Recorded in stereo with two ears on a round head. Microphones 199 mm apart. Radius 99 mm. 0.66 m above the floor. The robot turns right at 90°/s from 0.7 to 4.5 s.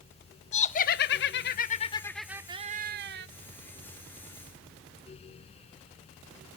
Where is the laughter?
45° left, 0.7 m; by 3.3 s 85° right, 0.7 m.